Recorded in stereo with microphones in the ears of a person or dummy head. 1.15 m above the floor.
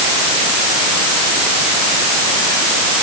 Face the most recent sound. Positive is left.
No sound to turn to.